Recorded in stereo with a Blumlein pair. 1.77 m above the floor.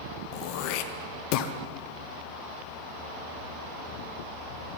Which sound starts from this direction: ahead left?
Throat clearing, at 0.3 s.